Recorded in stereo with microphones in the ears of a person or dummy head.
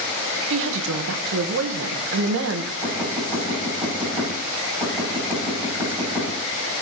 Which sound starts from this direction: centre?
Knocking, at 2.8 s.